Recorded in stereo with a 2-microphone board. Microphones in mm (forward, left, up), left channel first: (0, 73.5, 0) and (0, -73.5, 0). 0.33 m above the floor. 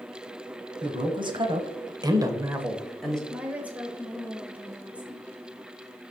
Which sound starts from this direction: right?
A man speaking, at 0.8 s.